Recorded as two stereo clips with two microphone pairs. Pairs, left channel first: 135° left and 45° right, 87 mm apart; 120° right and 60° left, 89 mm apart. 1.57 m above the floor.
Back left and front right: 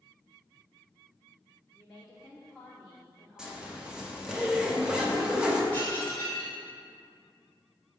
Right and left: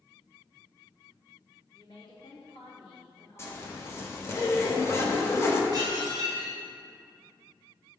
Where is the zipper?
115° right, 0.9 m.